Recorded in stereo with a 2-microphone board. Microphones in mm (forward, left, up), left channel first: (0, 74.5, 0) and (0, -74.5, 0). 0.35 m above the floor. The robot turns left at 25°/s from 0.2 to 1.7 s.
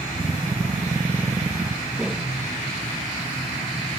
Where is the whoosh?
5° right (ahead or behind), 1.0 m.